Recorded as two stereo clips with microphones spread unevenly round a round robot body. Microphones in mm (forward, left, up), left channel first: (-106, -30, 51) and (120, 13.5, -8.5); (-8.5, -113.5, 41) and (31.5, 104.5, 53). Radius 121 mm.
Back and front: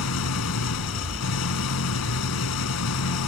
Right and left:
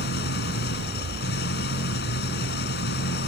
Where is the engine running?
145° right.